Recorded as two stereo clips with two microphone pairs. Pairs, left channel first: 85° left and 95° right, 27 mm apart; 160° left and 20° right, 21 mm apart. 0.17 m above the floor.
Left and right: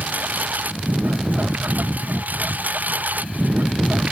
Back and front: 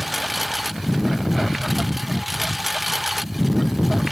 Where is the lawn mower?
105° right; by 4.1 s 100° right.